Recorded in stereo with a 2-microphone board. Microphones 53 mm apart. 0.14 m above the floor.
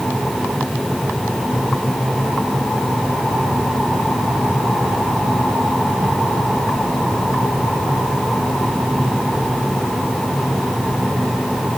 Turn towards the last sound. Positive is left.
No sound to turn to.